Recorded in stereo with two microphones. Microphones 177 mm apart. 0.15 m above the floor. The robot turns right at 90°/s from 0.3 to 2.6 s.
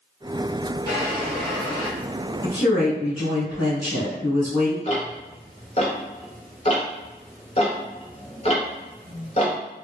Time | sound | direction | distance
0.9 | a drawer | 55° right | 1.3 m
2.4 | a woman speaking | 15° right (ahead or behind) | 1.3 m
4.8 | ticking | 40° left (ahead or behind) | 0.8 m